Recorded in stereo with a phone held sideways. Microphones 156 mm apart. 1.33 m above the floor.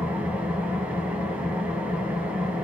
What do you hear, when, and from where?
0.0 s an engine running: 5° right (ahead or behind), 3 m